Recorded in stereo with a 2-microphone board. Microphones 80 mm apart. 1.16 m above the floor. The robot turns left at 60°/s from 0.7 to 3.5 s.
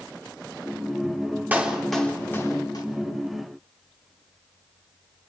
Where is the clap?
20° right (ahead or behind), 3.5 m; by 2.9 s 60° left (ahead or behind), 3.5 m.